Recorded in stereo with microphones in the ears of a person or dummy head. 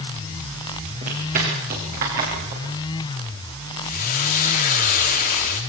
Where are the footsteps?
45° right (ahead or behind), 9.5 m; by 3.7 s 60° right (ahead or behind), 8.5 m.